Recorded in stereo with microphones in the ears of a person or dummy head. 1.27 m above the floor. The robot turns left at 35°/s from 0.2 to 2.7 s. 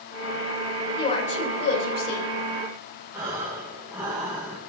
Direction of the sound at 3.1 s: 15° right (ahead or behind).